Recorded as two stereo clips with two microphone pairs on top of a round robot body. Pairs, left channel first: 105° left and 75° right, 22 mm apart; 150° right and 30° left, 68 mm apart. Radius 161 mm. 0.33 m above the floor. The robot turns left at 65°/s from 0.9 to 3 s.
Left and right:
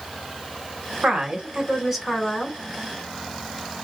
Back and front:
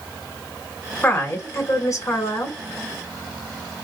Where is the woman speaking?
95° right, 2.5 m; by 2.6 s 165° left, 2.5 m.